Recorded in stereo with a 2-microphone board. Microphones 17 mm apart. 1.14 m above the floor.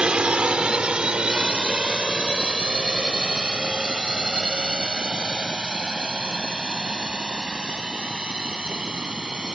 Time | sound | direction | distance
0.0 | a drone | 70° right (ahead or behind) | ?